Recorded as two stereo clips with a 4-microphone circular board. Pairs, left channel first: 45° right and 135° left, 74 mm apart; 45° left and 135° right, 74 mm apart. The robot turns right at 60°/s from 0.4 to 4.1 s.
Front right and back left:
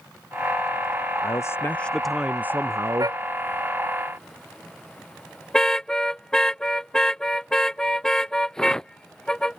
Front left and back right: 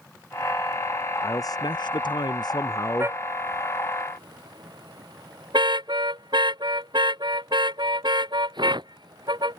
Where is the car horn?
170° left; by 9.6 s 125° right.